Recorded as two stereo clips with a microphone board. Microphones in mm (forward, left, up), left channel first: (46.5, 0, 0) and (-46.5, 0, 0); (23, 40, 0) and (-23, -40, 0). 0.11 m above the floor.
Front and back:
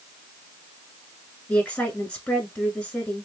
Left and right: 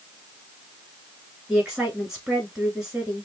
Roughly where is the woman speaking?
Ahead right.